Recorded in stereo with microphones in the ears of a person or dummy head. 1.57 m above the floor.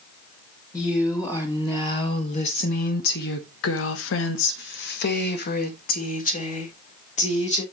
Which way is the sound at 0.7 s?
10° left (ahead or behind).